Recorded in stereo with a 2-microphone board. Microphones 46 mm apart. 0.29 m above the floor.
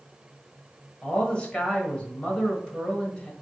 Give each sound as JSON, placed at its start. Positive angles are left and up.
{"t": 1.0, "sound": "a man speaking", "side_deg": 25, "distance_m": 1.2}